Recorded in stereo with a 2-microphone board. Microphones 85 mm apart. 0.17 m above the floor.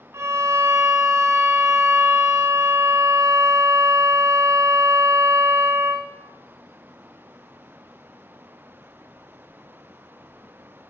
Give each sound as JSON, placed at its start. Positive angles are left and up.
{"t": 0.1, "sound": "a violin", "side_deg": -35, "distance_m": 0.7}